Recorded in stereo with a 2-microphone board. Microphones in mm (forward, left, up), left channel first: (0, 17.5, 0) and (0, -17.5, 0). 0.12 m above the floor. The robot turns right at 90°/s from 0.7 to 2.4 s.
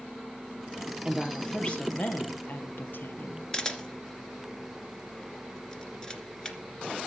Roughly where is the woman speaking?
Ahead.